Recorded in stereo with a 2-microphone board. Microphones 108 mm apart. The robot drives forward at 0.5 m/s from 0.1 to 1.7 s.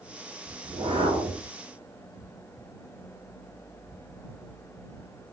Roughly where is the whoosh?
Right.